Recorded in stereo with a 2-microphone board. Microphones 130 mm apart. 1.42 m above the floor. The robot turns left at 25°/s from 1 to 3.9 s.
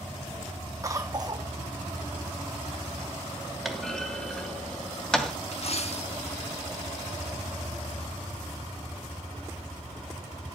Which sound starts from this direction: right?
A cough, at 0.8 s.